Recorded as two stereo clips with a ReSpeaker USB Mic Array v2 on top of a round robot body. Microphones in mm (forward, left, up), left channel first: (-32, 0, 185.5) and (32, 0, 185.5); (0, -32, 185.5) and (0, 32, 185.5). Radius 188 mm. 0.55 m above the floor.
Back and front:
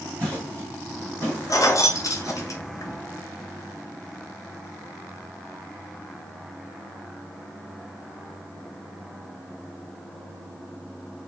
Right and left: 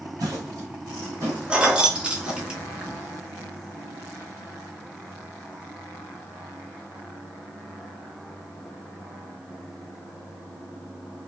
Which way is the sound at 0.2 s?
110° left.